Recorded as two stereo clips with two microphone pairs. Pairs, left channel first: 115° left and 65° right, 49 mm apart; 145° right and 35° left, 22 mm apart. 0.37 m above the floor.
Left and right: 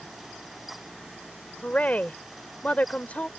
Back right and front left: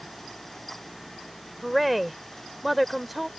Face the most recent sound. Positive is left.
turn(degrees=120)